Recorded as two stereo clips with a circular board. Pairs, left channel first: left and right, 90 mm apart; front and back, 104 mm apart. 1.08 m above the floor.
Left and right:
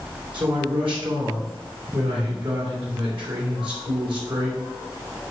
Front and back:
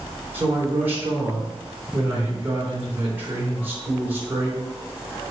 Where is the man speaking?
110° right, 3.5 m.